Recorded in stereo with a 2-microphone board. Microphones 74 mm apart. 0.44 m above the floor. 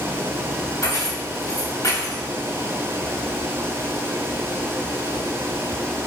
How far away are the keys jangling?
About 0.7 m.